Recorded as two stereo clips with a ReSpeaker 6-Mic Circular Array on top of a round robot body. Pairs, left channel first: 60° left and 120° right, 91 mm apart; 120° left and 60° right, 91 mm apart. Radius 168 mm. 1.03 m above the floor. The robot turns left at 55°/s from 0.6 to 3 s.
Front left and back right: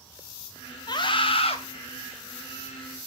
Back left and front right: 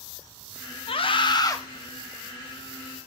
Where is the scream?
105° left, 2 m; by 1.6 s 65° left, 2 m.